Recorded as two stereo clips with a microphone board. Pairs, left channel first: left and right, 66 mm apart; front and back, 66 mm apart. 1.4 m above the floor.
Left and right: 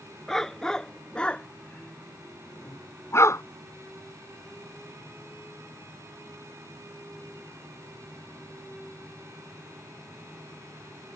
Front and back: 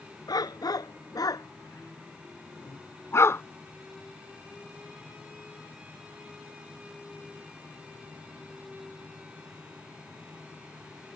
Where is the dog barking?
5° left; by 3.4 s 50° left.